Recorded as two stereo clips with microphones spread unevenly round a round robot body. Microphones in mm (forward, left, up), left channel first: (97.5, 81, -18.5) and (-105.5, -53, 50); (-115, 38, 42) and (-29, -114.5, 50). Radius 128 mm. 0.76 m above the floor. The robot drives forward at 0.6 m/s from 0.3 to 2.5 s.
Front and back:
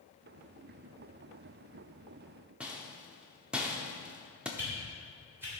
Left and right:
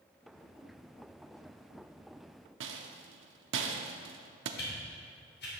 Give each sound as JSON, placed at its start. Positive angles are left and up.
{"t": 2.6, "sound": "a rattle", "azimuth_deg": -60, "distance_m": 0.7}
{"t": 4.6, "sound": "a whoosh", "azimuth_deg": 130, "distance_m": 3.0}